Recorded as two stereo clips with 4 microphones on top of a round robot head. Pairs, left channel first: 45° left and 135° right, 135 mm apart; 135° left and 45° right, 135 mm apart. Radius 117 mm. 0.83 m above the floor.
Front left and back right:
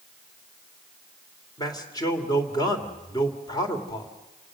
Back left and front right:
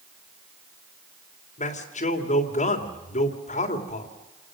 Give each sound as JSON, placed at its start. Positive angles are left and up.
{"t": 1.6, "sound": "a man speaking", "azimuth_deg": 105, "distance_m": 3.0}